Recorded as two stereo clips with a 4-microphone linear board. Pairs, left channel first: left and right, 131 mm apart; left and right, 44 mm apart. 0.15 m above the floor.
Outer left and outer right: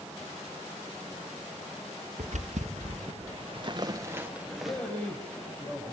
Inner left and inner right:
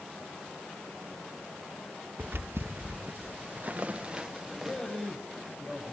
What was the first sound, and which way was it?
Footsteps, 80° right.